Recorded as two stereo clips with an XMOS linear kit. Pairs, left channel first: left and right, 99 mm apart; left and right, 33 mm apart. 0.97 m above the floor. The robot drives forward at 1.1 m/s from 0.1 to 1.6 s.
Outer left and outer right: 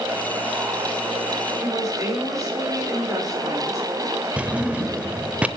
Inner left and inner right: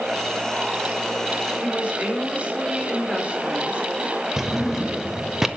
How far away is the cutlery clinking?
I don't hear cutlery clinking.